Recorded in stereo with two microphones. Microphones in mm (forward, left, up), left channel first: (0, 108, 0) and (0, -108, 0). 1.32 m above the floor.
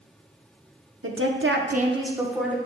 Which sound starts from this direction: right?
A woman speaking, at 1.0 s.